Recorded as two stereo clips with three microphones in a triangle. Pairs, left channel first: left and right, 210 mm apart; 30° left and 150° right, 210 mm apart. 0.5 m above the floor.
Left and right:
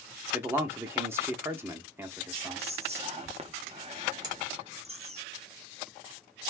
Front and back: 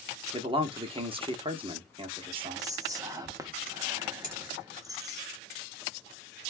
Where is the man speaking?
155° right, 0.7 m.